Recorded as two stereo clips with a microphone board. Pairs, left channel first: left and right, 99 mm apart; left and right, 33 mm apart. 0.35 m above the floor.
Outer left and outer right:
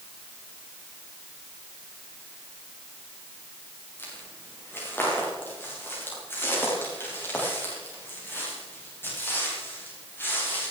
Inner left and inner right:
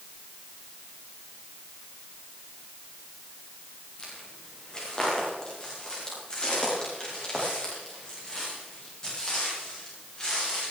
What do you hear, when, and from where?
4.0 s footsteps: 25° left (ahead or behind), 8 m; by 10.7 s 20° left (ahead or behind), 12.5 m